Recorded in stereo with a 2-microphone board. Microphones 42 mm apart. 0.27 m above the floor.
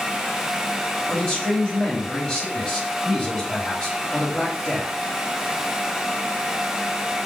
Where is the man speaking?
25° left (ahead or behind), 1.3 m.